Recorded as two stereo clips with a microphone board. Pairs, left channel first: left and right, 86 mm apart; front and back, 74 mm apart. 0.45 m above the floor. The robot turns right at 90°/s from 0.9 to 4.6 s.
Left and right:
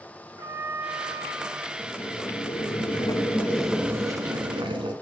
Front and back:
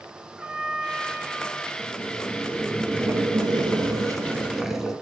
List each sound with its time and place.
0.4 s a trumpet: 115° right, 1.7 m; by 1.7 s 40° right, 1.7 m
1.8 s boiling: 10° left, 1.0 m; by 4.9 s 95° right, 1.0 m